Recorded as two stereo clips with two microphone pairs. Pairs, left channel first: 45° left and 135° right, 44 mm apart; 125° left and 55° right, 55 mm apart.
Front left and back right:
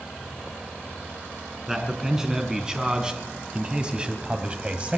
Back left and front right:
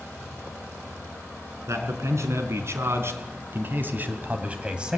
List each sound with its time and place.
1.7 s a man speaking: 55° right, 3.5 m; by 5.0 s 120° right, 1.7 m